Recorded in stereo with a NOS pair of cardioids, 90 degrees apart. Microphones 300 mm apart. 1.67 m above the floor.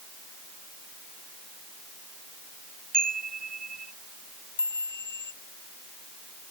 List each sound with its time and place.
2.9 s a chime: 30° right
4.6 s a chime: 35° left